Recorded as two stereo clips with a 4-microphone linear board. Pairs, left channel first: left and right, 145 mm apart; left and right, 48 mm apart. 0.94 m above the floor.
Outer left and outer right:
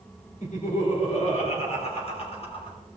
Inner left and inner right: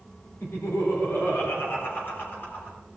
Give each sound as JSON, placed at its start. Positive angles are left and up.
{"t": 0.4, "sound": "laughter", "side_deg": 55, "distance_m": 3.5}